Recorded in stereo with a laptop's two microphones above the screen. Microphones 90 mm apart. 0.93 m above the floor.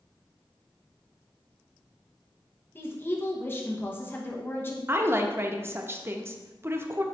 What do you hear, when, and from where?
2.8 s a woman speaking: 25° left (ahead or behind), 0.8 m
4.9 s a woman speaking: 25° right (ahead or behind), 0.6 m